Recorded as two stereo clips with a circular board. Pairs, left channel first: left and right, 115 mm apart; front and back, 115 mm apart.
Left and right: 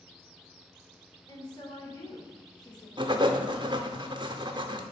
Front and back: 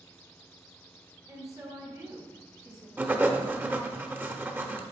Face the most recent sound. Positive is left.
turn(degrees=-110)